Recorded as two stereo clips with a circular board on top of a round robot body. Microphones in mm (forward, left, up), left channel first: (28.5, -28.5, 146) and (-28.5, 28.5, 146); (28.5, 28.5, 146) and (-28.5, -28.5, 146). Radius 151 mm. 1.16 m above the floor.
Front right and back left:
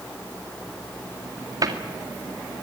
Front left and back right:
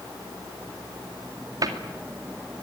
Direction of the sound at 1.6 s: Straight behind.